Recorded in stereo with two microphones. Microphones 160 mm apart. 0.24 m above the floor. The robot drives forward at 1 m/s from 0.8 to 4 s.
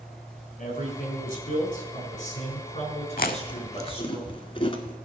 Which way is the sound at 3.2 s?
65° left (ahead or behind).